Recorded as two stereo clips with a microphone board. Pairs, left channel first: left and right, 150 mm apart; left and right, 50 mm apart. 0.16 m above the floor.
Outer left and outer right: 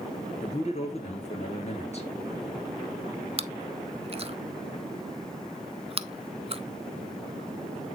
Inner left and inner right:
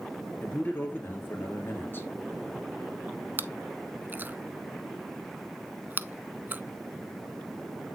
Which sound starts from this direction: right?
Chewing, at 3.4 s.